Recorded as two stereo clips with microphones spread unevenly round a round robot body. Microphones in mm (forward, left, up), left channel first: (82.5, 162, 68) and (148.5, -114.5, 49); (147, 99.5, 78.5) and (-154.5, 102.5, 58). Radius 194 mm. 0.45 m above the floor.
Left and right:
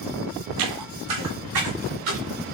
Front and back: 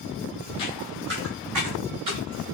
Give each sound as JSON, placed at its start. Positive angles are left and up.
{"t": 0.6, "sound": "footsteps", "azimuth_deg": -70, "distance_m": 0.6}